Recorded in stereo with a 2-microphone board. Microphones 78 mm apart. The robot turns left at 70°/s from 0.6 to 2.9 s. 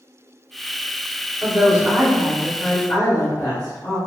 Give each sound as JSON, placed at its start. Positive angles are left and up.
{"t": 1.4, "sound": "a woman speaking", "azimuth_deg": -135, "distance_m": 1.7}